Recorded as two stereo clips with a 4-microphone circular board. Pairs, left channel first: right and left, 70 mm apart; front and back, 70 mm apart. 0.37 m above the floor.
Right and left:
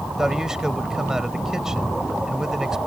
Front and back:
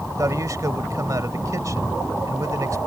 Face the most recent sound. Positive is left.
turn(degrees=170)